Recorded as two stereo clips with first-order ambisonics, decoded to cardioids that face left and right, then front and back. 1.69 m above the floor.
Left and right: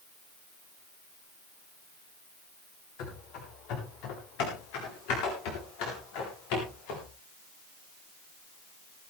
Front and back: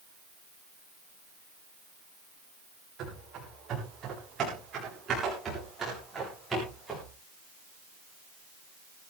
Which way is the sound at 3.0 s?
120° left.